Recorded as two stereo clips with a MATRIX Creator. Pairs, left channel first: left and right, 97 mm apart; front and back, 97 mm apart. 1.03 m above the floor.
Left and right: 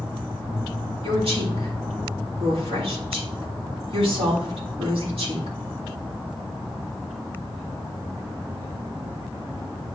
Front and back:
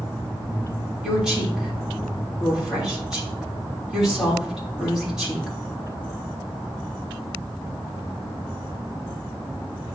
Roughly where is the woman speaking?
Right.